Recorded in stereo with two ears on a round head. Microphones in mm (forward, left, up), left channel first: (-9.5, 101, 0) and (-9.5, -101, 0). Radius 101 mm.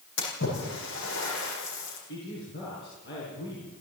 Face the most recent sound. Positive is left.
turn(degrees=45)  # may be behind; listen again after turning